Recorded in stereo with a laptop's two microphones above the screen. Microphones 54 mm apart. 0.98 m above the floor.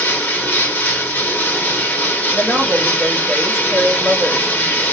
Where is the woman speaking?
25° left (ahead or behind), 2 m.